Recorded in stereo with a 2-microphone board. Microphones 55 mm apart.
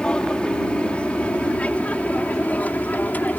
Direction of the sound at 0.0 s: 20° left (ahead or behind).